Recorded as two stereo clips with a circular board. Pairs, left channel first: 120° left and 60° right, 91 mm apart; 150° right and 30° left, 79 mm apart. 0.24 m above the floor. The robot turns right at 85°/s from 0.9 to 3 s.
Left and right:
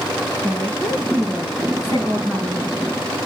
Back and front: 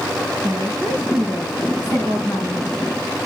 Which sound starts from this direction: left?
A woman speaking, at 0.4 s.